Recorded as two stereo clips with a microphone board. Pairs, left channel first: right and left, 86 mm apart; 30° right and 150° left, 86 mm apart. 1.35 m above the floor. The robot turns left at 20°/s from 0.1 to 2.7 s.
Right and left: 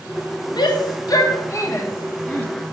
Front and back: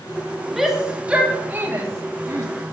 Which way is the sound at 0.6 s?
125° right.